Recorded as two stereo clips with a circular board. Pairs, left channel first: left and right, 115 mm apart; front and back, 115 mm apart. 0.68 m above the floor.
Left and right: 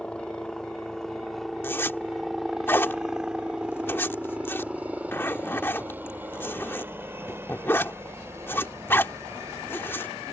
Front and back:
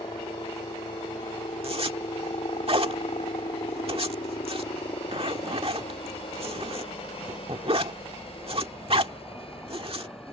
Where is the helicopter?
15° left; by 10.3 s 30° right.